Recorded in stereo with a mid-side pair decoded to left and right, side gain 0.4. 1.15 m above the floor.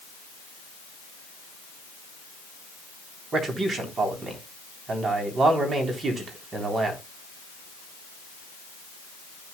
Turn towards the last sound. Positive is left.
turn(degrees=-50)